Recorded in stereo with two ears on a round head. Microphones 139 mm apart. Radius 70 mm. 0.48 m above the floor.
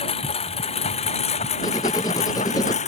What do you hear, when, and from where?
0.0 s a lawn mower: 40° left (ahead or behind); by 2.9 s 45° left (ahead or behind)
1.6 s writing: 20° left (ahead or behind)